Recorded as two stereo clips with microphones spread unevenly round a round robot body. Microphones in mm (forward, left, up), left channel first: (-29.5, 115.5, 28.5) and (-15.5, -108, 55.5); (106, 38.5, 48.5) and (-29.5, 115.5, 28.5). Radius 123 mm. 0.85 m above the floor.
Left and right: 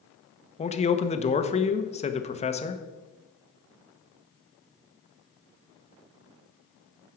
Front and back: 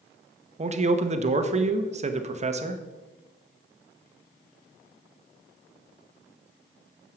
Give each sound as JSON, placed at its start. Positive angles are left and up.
{"t": 0.6, "sound": "a man speaking", "azimuth_deg": 140, "distance_m": 1.0}